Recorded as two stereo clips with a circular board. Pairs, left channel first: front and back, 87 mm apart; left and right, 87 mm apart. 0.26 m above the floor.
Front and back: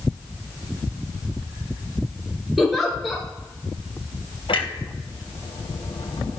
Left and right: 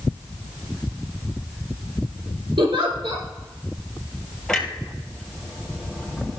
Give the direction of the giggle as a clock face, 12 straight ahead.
3 o'clock.